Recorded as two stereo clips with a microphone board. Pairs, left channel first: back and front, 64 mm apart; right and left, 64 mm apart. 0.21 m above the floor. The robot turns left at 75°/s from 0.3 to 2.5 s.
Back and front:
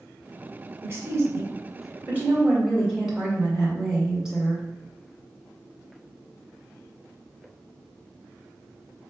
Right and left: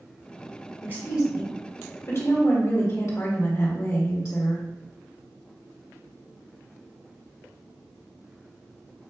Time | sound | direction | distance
0.8 | a woman speaking | 45° left | 1.9 m